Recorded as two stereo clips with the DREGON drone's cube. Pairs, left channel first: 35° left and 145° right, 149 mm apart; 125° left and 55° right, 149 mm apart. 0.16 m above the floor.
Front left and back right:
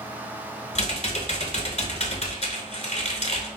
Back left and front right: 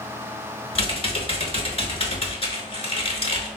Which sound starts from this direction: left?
Typing on a keyboard, at 0.8 s.